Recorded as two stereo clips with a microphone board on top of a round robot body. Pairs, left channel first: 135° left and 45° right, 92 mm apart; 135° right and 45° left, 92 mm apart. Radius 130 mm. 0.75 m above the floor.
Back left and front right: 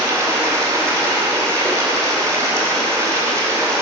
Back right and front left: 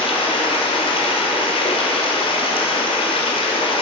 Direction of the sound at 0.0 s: 105° right.